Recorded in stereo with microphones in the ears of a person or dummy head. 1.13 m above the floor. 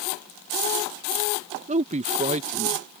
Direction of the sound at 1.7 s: 35° right (ahead or behind).